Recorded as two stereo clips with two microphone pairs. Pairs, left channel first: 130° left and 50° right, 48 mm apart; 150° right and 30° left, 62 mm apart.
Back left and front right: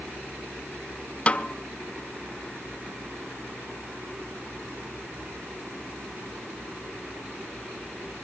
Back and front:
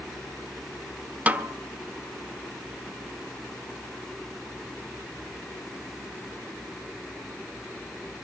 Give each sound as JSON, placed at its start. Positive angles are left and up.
{"t": 1.3, "sound": "a snare drum", "azimuth_deg": 85, "distance_m": 0.9}